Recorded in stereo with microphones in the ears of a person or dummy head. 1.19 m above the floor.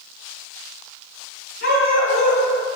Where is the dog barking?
55° left (ahead or behind), 6 m.